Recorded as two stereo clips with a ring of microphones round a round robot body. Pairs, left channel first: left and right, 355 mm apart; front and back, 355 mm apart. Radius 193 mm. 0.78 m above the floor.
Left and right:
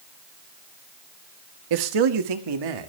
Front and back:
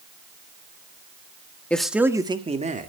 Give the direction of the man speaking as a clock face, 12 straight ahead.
3 o'clock.